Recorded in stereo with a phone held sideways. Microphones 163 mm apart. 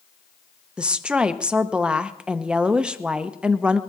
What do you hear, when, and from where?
0.8 s a woman speaking: 5° right (ahead or behind), 0.7 m